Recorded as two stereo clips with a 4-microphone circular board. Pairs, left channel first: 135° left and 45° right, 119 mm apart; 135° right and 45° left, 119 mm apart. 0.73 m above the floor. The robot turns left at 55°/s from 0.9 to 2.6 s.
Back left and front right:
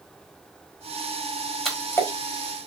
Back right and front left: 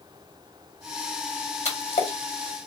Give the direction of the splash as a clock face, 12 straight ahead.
5 o'clock.